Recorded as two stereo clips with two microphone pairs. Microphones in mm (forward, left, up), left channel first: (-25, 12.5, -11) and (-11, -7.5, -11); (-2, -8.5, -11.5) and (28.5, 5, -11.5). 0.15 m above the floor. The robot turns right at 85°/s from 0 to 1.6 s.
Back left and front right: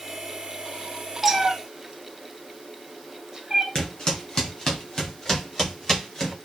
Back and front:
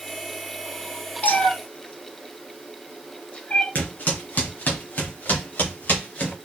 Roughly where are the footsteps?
Behind.